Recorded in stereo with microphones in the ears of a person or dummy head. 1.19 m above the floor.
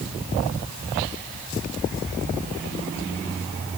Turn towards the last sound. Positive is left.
No sound to turn to.